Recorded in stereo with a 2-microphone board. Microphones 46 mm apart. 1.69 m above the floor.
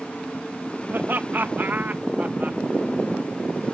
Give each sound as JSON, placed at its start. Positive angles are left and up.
{"t": 0.9, "sound": "laughter", "side_deg": -55}